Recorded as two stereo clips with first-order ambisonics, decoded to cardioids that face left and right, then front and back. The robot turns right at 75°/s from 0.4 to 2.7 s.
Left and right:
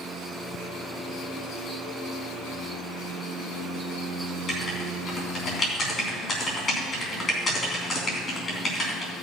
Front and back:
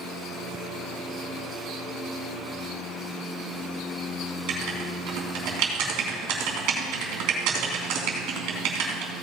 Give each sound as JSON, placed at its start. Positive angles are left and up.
{"t": 4.5, "sound": "writing", "azimuth_deg": 155, "distance_m": 3.0}